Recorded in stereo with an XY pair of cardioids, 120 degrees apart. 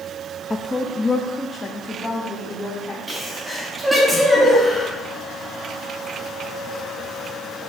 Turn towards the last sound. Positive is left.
turn(degrees=-10)